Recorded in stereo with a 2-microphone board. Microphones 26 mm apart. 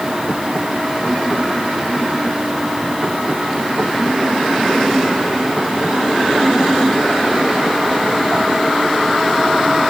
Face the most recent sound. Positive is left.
No sound to turn to.